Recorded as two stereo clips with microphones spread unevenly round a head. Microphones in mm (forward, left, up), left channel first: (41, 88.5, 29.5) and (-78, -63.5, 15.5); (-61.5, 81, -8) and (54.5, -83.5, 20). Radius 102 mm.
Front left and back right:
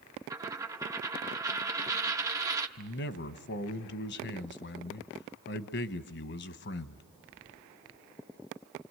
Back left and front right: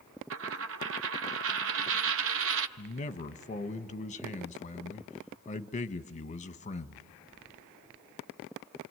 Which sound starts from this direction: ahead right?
A dropped coin, at 0.3 s.